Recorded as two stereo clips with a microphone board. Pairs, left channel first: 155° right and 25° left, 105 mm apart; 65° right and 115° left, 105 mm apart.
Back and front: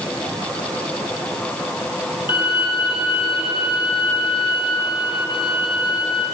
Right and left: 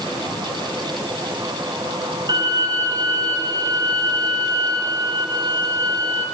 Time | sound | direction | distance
2.3 | a violin | 165° left | 2 m